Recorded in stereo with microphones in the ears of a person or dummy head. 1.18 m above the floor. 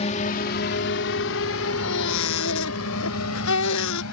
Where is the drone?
35° left (ahead or behind); by 4.1 s 80° left.